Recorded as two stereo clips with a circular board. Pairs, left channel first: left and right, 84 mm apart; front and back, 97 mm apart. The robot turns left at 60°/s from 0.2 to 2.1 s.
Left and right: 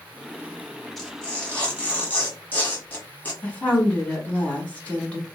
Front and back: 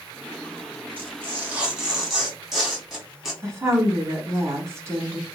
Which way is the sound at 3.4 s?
150° left.